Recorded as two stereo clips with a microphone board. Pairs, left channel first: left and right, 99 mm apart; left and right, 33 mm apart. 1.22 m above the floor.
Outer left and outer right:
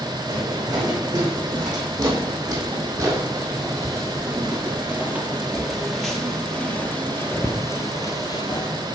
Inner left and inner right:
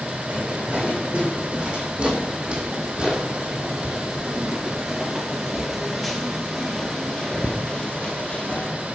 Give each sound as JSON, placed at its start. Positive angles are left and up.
{"t": 0.3, "sound": "footsteps", "side_deg": -45, "distance_m": 4.0}